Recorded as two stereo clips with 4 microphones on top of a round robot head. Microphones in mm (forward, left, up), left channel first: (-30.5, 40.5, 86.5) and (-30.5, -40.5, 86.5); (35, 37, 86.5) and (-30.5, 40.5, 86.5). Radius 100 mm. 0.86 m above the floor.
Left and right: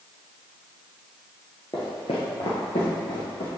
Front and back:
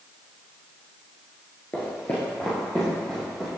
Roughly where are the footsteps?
Ahead left.